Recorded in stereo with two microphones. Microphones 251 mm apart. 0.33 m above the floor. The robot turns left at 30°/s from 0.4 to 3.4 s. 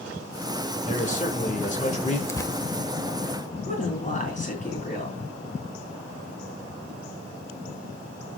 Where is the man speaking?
30° left (ahead or behind), 1.3 m; by 2.2 s 25° left (ahead or behind), 1.3 m.